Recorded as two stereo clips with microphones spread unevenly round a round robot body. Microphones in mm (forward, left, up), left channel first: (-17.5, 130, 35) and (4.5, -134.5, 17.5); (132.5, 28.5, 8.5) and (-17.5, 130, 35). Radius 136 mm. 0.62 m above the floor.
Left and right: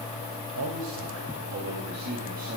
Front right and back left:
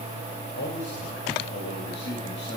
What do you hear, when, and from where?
0.6 s a man speaking: 55° right, 3 m; by 2.6 s 25° right, 3 m